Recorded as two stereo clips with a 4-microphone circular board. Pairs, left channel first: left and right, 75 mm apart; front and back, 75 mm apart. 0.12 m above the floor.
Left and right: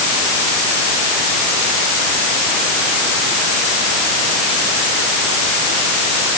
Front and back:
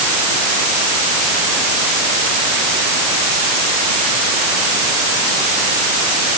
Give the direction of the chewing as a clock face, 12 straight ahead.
No chewing in this recording.